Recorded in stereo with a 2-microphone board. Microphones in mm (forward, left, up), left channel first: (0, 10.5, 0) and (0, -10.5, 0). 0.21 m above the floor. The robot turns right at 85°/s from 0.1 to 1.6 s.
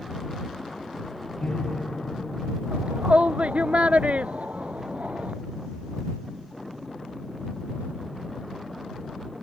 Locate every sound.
1.4 s a piano: 70° left (ahead or behind); by 2.6 s 55° left (ahead or behind)
2.7 s a shout: 80° right